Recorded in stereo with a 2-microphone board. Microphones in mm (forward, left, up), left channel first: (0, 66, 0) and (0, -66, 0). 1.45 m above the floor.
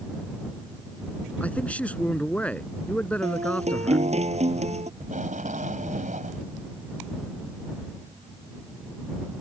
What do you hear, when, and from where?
1.4 s a man speaking: 10° left (ahead or behind)
3.2 s a guitar: 55° right (ahead or behind)
5.0 s tape being pulled: 75° right (ahead or behind)